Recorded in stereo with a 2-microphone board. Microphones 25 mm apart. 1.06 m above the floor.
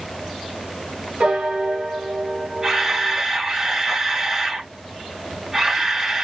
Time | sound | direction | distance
1.2 | a piano | 65° right (ahead or behind) | 1.6 m
2.6 | a camera shutter | 15° right (ahead or behind) | 4.5 m